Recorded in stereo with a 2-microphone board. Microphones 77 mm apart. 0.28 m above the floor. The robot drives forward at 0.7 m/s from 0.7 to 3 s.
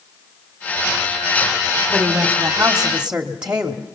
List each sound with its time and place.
1.9 s a woman speaking: 10° right (ahead or behind), 1.8 m; by 4.0 s 15° right (ahead or behind), 1.3 m